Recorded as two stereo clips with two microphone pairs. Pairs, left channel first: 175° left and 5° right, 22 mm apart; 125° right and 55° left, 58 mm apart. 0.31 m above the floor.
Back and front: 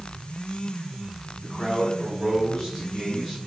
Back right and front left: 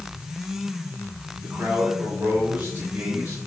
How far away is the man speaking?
About 3.5 m.